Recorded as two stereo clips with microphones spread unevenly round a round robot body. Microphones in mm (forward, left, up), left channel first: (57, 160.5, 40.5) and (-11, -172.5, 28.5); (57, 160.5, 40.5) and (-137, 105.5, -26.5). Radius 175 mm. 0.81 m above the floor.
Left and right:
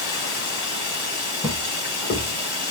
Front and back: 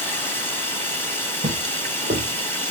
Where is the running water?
90° left, 1.8 m.